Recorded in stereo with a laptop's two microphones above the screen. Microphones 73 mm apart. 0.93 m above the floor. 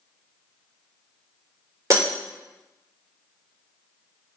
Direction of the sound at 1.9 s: 45° right (ahead or behind).